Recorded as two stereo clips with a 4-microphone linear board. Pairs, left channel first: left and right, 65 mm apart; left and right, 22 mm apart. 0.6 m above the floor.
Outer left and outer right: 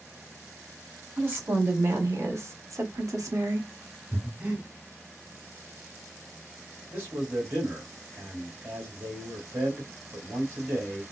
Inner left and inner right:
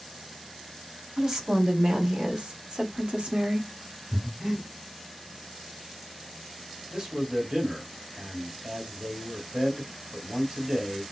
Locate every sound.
1.2 s a woman speaking: 30° right (ahead or behind), 1.8 m; by 3.7 s 60° right (ahead or behind), 1.3 m
4.1 s breathing: 25° right (ahead or behind), 2 m
6.9 s a man speaking: 30° right (ahead or behind), 2 m